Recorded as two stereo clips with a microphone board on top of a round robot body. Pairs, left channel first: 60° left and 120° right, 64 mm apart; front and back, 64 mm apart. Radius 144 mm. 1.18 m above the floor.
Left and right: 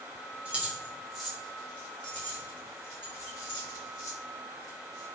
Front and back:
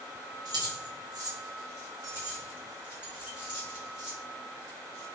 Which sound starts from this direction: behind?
Keys jangling, at 0.5 s.